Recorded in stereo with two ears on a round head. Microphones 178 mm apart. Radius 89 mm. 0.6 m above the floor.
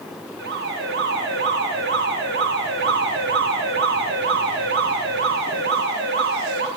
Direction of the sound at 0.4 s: 55° right (ahead or behind).